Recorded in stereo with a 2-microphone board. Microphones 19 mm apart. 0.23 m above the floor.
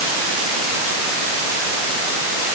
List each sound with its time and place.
Only background noise.